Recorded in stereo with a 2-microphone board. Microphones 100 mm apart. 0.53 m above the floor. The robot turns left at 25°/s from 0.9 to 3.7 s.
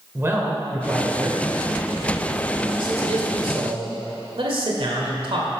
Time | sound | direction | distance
0.1 | a man speaking | 25° right (ahead or behind) | 1.5 m